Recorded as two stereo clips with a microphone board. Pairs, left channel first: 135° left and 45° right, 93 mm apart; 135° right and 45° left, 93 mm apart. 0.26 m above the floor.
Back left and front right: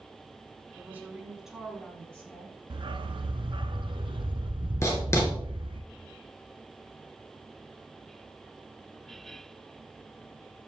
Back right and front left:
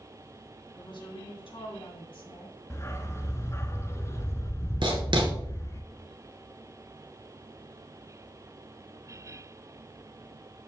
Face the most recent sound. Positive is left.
turn(degrees=75)